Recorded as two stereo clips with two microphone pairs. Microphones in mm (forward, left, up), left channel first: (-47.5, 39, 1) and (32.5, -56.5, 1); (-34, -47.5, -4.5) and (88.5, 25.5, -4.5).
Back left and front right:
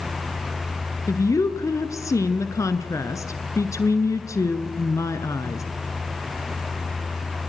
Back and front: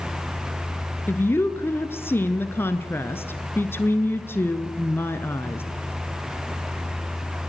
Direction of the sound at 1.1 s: 155° left.